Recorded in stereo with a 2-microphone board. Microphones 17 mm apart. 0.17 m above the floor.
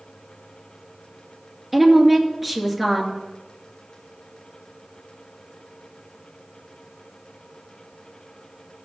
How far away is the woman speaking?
About 2.5 m.